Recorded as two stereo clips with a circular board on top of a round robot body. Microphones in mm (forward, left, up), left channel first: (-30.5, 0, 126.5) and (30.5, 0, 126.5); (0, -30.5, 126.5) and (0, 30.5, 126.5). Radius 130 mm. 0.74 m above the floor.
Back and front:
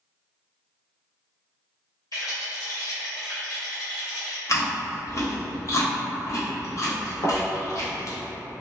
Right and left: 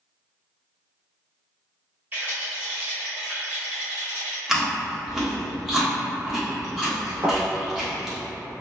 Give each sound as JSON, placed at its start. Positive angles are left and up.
{"t": 2.1, "sound": "a rattle", "azimuth_deg": 150, "distance_m": 1.0}
{"t": 4.5, "sound": "chewing", "azimuth_deg": 170, "distance_m": 1.1}
{"t": 7.2, "sound": "a thud", "azimuth_deg": 150, "distance_m": 0.6}